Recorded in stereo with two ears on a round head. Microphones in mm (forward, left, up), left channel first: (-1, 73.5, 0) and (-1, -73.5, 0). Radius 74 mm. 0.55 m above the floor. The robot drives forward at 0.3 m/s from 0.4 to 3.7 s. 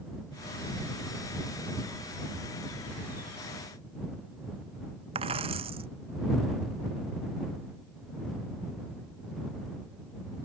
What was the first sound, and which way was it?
A dropped coin, 35° right (ahead or behind).